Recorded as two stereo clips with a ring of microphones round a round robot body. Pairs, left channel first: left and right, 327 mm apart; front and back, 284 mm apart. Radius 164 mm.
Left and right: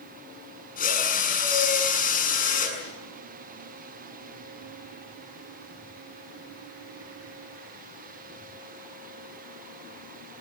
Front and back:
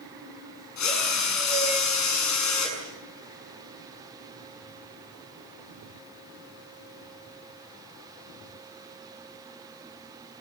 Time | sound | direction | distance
0.8 | a drill | 25° left | 7 m